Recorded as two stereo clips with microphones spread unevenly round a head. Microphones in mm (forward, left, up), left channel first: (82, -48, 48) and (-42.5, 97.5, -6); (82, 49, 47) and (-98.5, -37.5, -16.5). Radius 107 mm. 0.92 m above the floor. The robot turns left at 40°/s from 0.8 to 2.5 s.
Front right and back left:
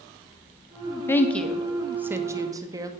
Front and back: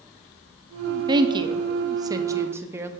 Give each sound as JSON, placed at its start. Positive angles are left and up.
{"t": 1.1, "sound": "a woman speaking", "azimuth_deg": -140, "distance_m": 0.8}